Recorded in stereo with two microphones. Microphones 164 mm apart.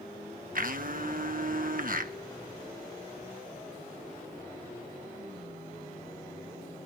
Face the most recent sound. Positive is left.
turn(degrees=-60)  # may be behind; listen again after turning